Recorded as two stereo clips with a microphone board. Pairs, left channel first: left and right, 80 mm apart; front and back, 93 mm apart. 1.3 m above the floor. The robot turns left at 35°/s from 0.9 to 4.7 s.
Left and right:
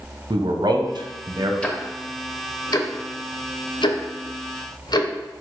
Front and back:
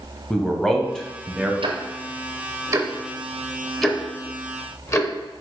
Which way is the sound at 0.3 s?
85° right.